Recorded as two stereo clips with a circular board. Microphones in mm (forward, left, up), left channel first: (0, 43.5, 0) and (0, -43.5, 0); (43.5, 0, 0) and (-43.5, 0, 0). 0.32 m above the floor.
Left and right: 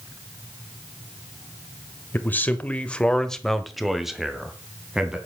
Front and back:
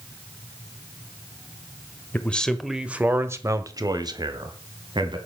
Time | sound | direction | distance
2.1 | a man speaking | 45° left | 1.2 m